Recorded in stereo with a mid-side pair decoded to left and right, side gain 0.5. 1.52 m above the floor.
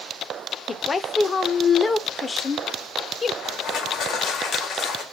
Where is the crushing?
60° left, 1.4 m.